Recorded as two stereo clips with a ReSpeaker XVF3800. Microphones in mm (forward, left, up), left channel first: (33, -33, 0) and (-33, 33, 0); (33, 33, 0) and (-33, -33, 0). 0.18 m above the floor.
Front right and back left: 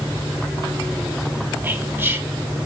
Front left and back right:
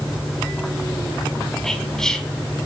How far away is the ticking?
No ticking in this recording.